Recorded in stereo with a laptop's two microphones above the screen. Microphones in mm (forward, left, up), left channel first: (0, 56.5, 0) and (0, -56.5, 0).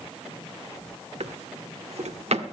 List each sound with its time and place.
1.2 s a drawer: 70° right (ahead or behind), 1.2 m